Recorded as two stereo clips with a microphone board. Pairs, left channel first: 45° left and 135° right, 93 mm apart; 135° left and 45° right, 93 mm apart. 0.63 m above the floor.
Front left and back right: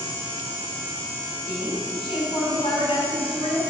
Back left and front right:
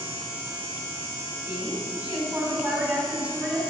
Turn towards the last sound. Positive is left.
turn(degrees=30)